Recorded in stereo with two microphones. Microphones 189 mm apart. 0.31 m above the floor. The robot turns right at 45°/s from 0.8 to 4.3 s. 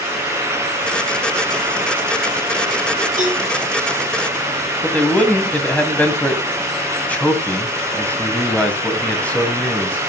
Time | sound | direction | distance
3.2 | a cowbell | 45° right (ahead or behind) | 8 m
4.8 | a man speaking | 5° left (ahead or behind) | 2.5 m